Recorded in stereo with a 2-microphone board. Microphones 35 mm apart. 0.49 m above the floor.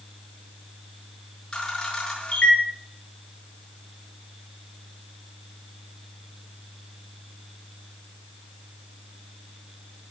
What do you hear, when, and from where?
1.5 s a camera shutter: 30° left (ahead or behind), 7 m